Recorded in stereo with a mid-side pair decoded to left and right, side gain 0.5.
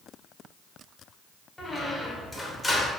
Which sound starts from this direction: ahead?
A squeak, at 1.6 s.